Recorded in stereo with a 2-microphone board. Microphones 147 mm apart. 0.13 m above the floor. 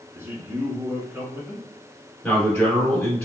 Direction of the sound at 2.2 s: 5° left (ahead or behind).